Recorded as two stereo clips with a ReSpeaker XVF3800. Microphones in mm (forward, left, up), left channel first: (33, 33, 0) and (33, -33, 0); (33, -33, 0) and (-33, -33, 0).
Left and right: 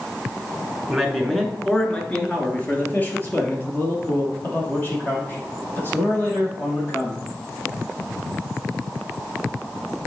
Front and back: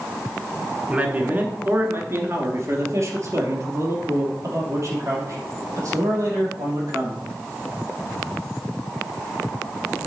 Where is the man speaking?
175° right, 1.2 m; by 7.2 s 145° left, 5 m.